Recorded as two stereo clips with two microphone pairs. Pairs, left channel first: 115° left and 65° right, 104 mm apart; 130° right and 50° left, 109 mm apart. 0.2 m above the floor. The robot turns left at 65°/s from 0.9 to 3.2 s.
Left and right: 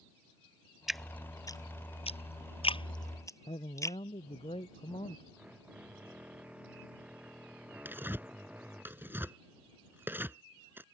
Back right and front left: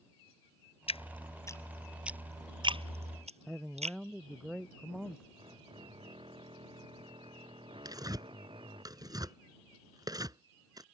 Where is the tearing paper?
5° left.